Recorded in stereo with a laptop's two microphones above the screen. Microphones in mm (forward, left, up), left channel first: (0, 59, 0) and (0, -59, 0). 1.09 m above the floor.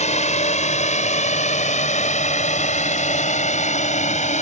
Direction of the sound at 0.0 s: 75° left (ahead or behind).